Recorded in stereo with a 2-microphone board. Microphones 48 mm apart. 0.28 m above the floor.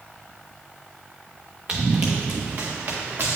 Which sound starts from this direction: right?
Running footsteps, at 1.7 s.